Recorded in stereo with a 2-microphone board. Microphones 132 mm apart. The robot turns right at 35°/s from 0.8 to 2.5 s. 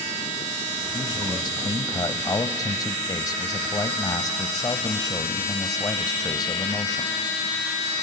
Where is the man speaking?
65° left, 1.0 m; by 7.1 s 120° left, 1.0 m.